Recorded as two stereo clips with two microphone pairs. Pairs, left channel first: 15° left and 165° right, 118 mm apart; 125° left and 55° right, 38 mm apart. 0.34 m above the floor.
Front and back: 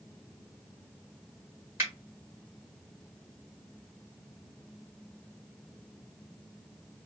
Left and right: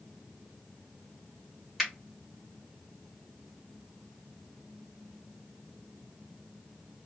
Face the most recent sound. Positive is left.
turn(degrees=-140)